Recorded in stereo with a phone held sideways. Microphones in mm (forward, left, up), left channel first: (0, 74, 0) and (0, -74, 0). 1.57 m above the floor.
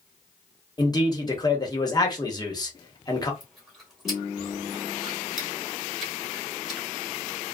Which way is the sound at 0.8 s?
25° left (ahead or behind).